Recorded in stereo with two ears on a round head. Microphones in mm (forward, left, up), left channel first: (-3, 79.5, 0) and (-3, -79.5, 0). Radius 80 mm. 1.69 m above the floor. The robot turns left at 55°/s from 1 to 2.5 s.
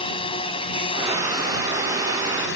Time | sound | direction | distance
0.0 | a drone | 30° left (ahead or behind) | ?